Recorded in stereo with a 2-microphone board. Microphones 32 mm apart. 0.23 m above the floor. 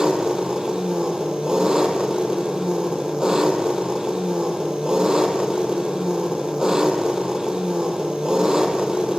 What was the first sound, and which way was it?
An engine running, 25° right (ahead or behind).